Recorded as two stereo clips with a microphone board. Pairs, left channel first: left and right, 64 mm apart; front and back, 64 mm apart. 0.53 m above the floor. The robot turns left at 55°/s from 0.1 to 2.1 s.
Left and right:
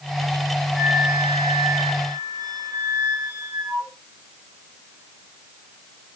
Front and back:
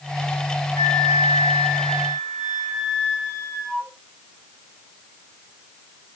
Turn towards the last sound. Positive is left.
turn(degrees=-80)